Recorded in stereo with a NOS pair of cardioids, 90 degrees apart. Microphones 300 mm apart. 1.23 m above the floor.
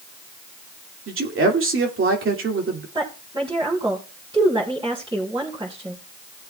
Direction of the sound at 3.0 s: 15° right.